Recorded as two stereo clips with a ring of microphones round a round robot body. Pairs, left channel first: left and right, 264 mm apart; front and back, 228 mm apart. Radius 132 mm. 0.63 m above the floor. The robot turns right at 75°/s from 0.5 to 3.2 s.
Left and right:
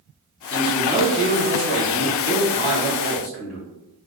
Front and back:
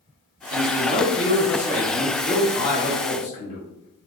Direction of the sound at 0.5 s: 155° left.